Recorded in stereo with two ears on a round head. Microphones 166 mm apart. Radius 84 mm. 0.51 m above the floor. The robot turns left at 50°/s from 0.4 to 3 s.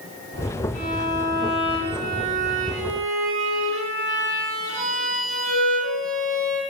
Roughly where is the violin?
Ahead left.